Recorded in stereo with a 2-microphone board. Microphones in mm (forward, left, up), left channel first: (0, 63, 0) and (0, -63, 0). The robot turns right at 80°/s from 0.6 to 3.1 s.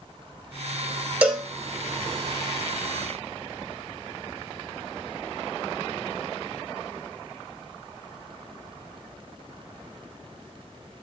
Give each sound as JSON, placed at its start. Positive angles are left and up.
{"t": 1.2, "sound": "a cowbell", "side_deg": -10, "distance_m": 1.0}